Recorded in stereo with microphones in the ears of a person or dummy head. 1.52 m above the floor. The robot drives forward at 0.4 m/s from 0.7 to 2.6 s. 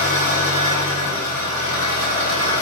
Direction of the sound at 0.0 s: 45° left (ahead or behind).